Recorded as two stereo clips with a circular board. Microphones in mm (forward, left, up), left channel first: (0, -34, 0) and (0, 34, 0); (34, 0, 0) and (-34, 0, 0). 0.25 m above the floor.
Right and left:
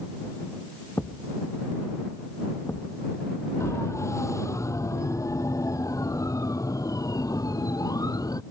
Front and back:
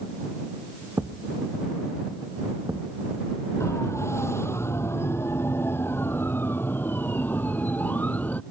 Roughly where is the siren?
Ahead right.